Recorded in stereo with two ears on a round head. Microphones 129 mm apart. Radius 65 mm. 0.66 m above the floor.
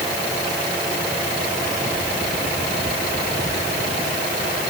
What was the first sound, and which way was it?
Only background noise.